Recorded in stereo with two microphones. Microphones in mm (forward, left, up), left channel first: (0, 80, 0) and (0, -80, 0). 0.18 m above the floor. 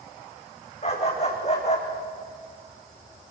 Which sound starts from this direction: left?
A dog barking, at 0.8 s.